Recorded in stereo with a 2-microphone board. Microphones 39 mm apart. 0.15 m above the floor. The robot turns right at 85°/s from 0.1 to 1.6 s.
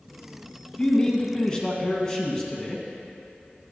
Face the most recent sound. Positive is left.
turn(degrees=20)  # may be behind; listen again after turning